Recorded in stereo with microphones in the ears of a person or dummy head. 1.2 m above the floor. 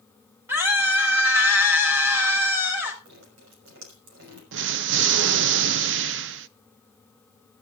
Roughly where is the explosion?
Right.